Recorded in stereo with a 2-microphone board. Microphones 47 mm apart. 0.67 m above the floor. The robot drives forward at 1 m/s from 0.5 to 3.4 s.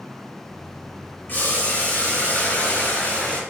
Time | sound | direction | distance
1.3 | boiling | 45° left (ahead or behind) | 4 m